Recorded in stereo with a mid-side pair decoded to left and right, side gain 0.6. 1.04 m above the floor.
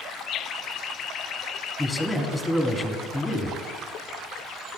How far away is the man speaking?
About 1.6 m.